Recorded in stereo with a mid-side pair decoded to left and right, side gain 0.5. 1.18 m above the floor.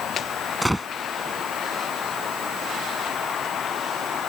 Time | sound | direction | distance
0.6 | a gunshot | 5° right | ?